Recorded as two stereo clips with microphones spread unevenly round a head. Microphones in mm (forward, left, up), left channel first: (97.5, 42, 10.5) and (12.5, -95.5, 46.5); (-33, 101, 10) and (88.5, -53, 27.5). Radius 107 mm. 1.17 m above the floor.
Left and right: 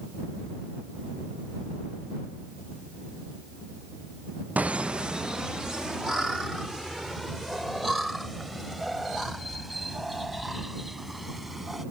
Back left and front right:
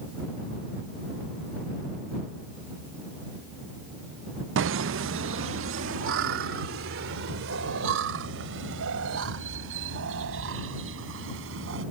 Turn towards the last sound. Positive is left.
turn(degrees=-35)